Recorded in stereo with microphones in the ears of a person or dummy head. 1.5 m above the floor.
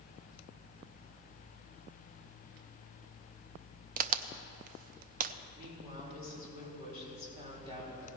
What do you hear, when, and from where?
4.0 s a crack: 55° right (ahead or behind), 0.6 m
5.5 s a woman speaking: 25° right (ahead or behind), 4.5 m